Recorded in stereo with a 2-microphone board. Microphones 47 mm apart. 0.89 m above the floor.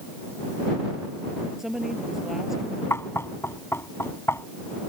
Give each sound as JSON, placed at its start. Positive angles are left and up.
{"t": 1.6, "sound": "a woman speaking", "side_deg": -5}
{"t": 2.9, "sound": "knocking", "side_deg": 65}